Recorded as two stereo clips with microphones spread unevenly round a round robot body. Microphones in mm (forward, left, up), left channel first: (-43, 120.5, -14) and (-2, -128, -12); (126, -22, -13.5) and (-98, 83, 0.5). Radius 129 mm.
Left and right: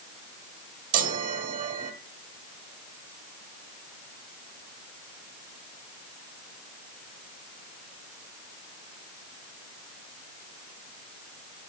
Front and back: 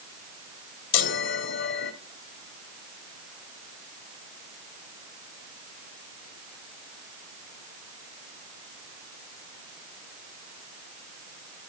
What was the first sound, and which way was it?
A chime, 30° right.